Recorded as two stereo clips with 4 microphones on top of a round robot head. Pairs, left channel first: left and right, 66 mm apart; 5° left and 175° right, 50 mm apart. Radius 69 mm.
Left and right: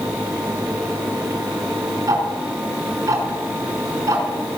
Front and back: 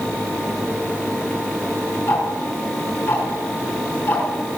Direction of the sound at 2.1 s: 50° right.